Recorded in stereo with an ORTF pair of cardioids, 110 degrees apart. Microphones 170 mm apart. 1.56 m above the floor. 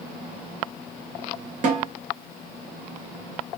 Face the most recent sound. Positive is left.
turn(degrees=-50)